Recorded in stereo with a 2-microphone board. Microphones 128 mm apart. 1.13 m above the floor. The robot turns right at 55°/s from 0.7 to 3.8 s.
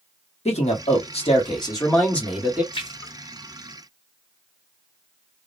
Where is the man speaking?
90° left, 1.2 m; by 2.6 s 165° right, 1.2 m.